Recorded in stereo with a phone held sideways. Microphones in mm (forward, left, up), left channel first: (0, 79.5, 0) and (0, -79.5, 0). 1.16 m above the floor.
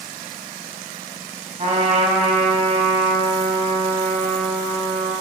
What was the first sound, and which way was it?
A trumpet, 45° right (ahead or behind).